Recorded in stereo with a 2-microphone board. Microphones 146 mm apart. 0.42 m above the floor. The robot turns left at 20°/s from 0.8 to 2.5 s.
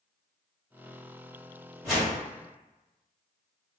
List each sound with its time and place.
1.8 s a whoosh: centre (ahead or behind), 1.6 m; by 2.2 s 5° right (ahead or behind), 1.6 m